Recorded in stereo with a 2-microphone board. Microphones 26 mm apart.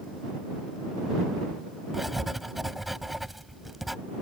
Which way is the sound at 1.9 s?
10° right (ahead or behind).